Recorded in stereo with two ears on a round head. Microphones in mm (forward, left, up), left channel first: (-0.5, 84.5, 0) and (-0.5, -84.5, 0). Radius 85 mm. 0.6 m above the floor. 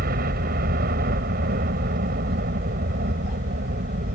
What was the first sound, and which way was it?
A helicopter, 50° right (ahead or behind).